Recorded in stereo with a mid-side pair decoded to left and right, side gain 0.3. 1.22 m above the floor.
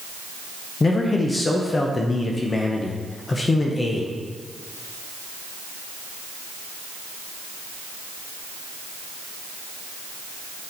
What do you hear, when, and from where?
0.8 s a man speaking: 40° left, 0.8 m